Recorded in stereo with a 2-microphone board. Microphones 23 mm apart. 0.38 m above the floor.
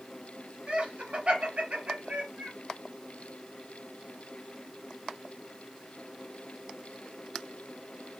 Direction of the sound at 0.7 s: 50° right (ahead or behind).